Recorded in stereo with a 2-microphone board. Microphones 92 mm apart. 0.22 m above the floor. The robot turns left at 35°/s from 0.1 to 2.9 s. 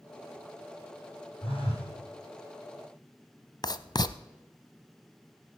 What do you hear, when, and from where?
1.4 s a phone buzzing: 75° left (ahead or behind), 6.5 m; by 1.9 s 80° left, 6.5 m
3.6 s writing: 50° left (ahead or behind), 0.5 m